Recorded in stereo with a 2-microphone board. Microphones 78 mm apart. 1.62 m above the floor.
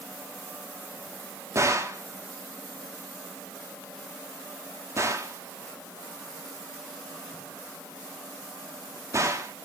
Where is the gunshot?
40° right (ahead or behind), 0.7 m.